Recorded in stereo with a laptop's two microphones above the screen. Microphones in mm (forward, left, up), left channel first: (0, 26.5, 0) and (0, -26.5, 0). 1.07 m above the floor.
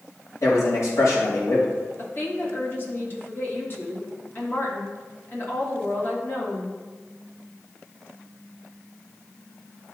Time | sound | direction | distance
0.4 | a man speaking | 65° left (ahead or behind) | 2.5 m
2.0 | a woman speaking | 40° left (ahead or behind) | 1.2 m